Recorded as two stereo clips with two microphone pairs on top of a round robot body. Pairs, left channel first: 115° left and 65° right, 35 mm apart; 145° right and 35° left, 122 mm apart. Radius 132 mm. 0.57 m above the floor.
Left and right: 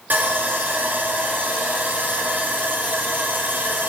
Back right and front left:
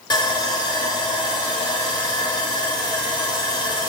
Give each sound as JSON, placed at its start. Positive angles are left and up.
{"t": 0.1, "sound": "sawing", "azimuth_deg": -95, "distance_m": 2.0}